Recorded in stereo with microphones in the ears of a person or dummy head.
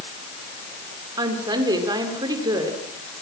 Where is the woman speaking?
20° right (ahead or behind), 4.5 m.